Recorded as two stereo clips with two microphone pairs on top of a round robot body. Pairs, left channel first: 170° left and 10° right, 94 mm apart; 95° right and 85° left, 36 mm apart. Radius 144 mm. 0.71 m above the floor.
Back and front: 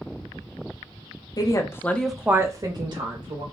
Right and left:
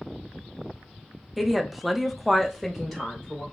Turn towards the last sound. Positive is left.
turn(degrees=-15)